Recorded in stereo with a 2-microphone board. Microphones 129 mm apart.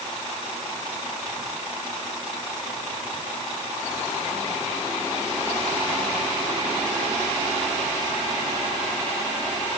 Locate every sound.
Only background noise.